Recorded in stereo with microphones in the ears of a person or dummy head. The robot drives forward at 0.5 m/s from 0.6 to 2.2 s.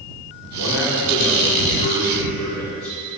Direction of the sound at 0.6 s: 55° left (ahead or behind).